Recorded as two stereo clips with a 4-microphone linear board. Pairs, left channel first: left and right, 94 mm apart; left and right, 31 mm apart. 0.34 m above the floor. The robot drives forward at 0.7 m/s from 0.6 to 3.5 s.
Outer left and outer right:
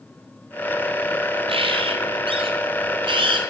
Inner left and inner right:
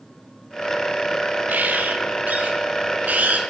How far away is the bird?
About 4 m.